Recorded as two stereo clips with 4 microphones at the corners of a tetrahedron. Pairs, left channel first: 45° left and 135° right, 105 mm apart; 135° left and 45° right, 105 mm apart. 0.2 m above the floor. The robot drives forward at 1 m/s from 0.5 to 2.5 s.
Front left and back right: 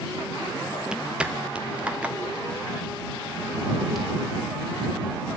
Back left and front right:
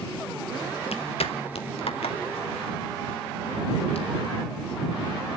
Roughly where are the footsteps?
Behind left.